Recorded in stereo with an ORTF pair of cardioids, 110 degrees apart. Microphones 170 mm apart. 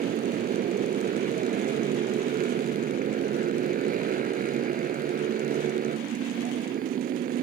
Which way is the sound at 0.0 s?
55° right.